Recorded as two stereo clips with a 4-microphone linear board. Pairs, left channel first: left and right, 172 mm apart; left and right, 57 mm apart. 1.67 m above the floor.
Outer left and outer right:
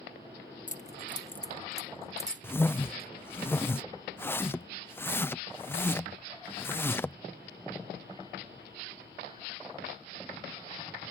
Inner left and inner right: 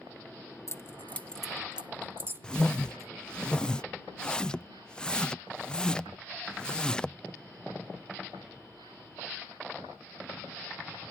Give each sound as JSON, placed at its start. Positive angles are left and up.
{"t": 0.7, "sound": "keys jangling", "side_deg": 45}
{"t": 2.4, "sound": "a whoosh", "side_deg": 10}